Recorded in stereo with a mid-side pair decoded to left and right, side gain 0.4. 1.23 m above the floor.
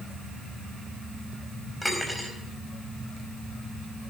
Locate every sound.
1.8 s cutlery clinking: 5° left, 4.5 m